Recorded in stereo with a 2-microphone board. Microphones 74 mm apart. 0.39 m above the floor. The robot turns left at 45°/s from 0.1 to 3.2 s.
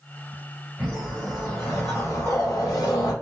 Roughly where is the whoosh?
Behind.